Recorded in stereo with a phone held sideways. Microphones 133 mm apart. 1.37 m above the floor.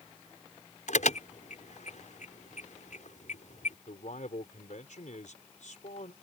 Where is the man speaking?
70° left (ahead or behind).